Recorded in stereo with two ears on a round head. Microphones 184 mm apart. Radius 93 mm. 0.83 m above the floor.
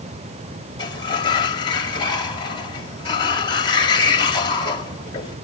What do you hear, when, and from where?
0.8 s a sliding door: 25° left (ahead or behind), 2.5 m